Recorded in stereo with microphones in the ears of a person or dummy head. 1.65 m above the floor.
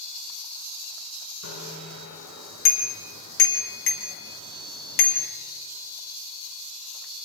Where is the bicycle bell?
80° left, 4 m; by 5.3 s 50° left (ahead or behind), 1.9 m.